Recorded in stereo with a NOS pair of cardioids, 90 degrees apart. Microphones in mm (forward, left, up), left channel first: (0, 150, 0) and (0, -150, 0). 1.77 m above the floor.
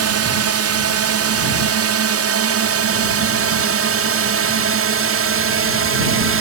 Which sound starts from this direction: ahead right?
A drone, at 0.0 s.